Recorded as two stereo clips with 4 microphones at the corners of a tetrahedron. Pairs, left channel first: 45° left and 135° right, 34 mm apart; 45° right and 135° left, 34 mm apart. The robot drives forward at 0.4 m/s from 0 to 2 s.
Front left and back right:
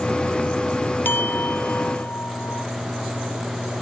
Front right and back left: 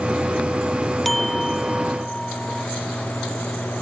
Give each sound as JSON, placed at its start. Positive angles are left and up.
{"t": 1.1, "sound": "a clink", "azimuth_deg": 40}